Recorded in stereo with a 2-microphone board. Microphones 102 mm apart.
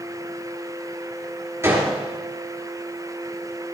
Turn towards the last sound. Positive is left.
turn(degrees=-25)  # may be behind; listen again after turning